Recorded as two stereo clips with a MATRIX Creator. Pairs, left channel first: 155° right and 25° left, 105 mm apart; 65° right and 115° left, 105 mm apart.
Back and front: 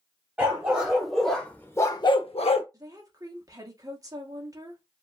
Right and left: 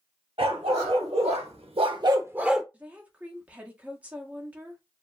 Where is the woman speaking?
45° left, 0.9 m.